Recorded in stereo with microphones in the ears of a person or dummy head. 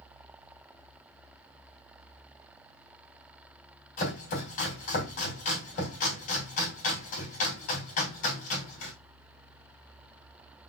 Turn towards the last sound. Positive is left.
turn(degrees=45)  # may be behind; listen again after turning